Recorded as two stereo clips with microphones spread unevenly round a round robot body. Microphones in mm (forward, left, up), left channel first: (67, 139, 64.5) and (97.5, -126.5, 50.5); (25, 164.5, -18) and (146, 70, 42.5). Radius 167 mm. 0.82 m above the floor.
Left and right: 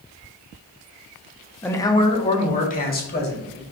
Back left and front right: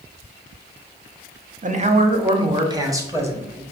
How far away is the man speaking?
About 0.9 m.